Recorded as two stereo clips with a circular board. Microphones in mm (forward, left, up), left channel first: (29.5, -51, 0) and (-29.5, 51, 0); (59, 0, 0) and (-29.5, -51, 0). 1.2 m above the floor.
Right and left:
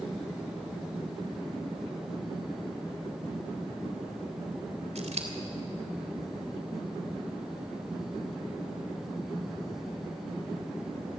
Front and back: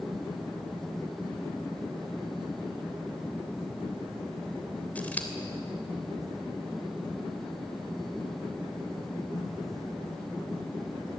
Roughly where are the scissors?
Left.